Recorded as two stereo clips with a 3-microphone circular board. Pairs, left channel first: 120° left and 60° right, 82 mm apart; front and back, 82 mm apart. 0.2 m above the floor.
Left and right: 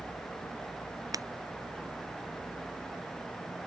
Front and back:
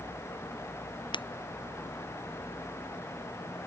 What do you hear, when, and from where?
1.1 s breaking glass: 15° right